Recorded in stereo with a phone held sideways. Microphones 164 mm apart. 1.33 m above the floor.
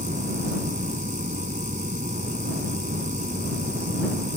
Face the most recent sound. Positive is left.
turn(degrees=-50)  # may be behind; listen again after turning